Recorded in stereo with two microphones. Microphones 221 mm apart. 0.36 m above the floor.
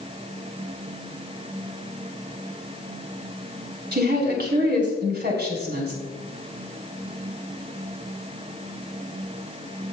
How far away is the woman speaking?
About 3.5 m.